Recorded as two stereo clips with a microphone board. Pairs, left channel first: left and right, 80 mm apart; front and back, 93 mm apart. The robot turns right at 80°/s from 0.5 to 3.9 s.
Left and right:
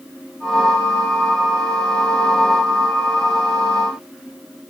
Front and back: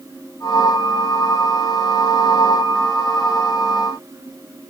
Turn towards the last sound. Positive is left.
No sound to turn to.